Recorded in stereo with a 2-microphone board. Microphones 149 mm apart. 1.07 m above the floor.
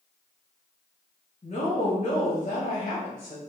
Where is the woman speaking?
50° left (ahead or behind), 1.1 m.